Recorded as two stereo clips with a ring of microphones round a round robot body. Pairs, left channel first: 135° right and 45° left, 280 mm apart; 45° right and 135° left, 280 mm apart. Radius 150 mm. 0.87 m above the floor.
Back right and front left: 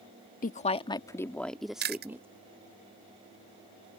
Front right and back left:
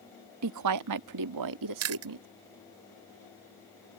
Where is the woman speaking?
165° left; by 2.3 s 125° left.